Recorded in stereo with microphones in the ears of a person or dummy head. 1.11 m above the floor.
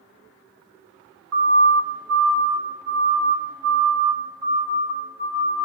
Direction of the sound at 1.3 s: 80° right.